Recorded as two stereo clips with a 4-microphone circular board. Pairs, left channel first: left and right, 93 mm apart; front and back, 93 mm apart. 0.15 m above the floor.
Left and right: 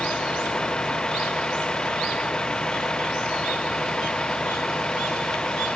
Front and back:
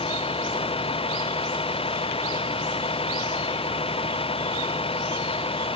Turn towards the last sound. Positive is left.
turn(degrees=10)